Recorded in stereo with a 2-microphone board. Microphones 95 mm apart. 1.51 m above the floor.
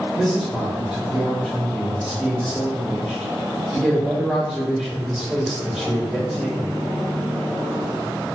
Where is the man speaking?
5° right (ahead or behind), 2.0 m.